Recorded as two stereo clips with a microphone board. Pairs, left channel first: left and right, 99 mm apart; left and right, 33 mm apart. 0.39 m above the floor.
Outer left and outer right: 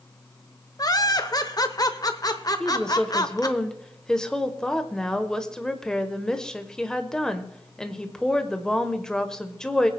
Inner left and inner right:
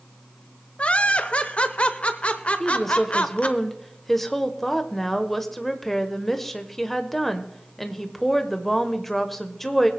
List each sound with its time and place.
0.8 s laughter: 40° left (ahead or behind), 0.9 m
2.6 s a woman speaking: 5° left (ahead or behind), 1.1 m